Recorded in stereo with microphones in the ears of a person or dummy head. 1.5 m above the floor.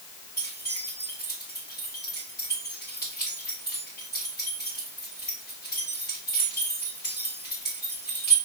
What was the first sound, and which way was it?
Keys jangling, 20° left (ahead or behind).